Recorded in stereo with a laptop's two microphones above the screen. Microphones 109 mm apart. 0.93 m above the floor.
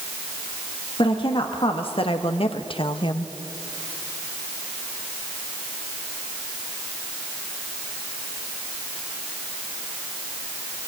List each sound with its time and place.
1.0 s a woman speaking: 55° left (ahead or behind), 1.5 m; by 3.3 s 45° left (ahead or behind), 0.9 m